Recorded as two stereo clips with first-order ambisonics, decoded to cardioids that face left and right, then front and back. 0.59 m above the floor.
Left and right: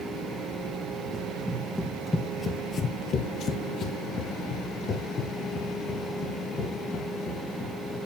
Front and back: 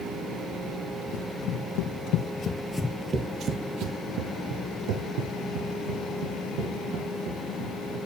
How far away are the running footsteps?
About 1.4 m.